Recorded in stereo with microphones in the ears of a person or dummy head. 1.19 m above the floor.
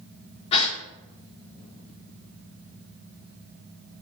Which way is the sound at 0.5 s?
30° left (ahead or behind).